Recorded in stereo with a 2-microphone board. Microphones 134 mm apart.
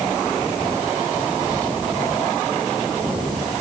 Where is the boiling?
I don't hear boiling.